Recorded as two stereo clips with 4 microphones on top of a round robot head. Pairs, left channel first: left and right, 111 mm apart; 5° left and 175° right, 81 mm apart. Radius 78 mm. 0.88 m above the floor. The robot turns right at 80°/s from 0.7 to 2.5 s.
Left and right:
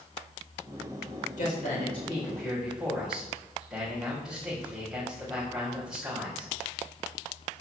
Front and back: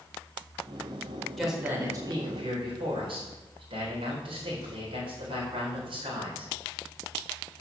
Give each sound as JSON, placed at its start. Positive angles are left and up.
{"t": 1.4, "sound": "a man speaking", "azimuth_deg": 95, "distance_m": 3.5}